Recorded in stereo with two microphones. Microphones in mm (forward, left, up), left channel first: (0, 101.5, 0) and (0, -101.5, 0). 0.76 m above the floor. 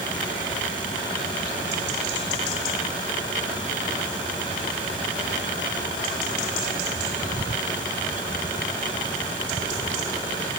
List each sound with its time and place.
Only background noise.